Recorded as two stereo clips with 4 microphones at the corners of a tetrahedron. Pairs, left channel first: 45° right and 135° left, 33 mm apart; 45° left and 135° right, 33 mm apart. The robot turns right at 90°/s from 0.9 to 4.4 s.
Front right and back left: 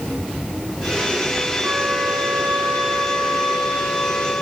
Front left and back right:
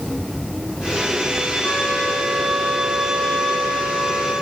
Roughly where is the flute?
Left.